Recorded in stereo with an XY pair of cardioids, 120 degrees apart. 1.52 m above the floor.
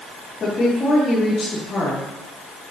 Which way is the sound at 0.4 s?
35° left.